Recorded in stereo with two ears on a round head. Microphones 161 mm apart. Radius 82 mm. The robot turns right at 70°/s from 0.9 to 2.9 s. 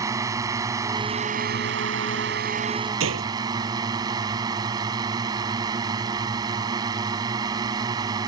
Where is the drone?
160° right; by 8.3 s 20° right.